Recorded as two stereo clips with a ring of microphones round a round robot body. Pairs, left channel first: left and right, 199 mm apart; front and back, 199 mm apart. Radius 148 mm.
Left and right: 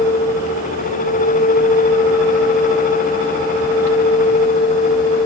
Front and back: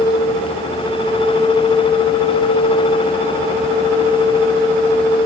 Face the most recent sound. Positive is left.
No sound to turn to.